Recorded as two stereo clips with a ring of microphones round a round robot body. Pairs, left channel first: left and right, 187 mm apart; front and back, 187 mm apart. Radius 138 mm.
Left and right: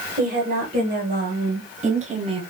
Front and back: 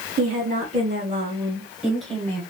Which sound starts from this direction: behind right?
A woman speaking, at 0.2 s.